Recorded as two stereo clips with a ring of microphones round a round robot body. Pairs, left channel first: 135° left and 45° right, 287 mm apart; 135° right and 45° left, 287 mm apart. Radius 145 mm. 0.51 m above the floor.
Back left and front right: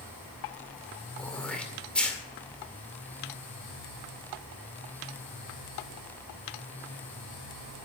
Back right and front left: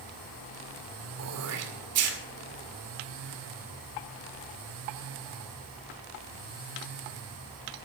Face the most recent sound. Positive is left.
turn(degrees=50)